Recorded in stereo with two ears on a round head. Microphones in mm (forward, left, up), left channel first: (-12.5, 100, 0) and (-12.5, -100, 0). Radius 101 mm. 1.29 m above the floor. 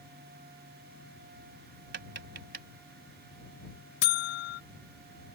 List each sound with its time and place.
1.9 s tapping: 50° right (ahead or behind)
4.0 s a buzzer: 45° left (ahead or behind)